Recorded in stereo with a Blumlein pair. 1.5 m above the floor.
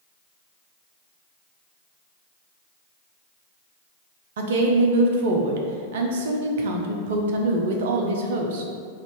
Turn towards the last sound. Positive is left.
turn(degrees=-55)